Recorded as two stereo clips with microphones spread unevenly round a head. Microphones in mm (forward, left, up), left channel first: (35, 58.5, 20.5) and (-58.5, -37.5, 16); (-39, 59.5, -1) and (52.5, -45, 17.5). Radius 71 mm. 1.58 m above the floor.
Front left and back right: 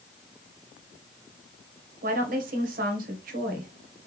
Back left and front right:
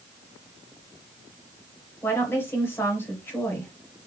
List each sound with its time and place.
2.0 s a woman speaking: 155° right, 1.3 m